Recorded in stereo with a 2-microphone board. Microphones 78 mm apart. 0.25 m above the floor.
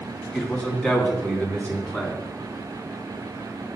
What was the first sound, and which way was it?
A man speaking, 15° left (ahead or behind).